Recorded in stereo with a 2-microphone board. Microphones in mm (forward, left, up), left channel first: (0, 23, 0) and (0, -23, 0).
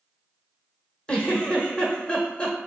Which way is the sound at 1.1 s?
20° left (ahead or behind).